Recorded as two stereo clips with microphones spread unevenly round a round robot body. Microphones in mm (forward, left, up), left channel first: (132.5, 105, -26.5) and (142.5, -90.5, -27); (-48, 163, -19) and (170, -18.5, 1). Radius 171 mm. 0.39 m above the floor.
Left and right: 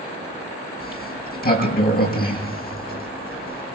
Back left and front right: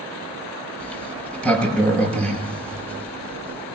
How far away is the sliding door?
About 6 m.